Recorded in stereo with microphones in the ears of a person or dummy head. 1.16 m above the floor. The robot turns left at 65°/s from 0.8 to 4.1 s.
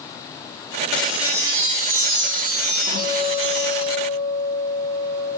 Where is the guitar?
160° right, 0.8 m; by 5.3 s 120° left, 0.8 m.